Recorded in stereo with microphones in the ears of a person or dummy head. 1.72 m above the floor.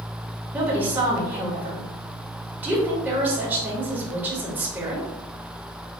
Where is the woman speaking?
10° right (ahead or behind), 1.7 m.